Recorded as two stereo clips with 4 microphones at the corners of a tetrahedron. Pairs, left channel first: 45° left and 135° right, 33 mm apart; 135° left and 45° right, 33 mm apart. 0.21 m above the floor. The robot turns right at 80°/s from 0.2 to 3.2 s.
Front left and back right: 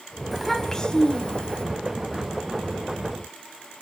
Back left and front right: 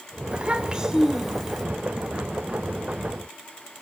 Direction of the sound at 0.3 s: 40° right.